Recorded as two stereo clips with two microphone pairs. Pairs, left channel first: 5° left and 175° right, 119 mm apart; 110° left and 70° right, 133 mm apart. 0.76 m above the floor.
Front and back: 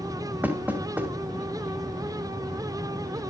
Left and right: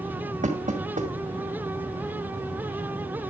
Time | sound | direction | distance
0.4 | knocking | 100° right | 2.5 m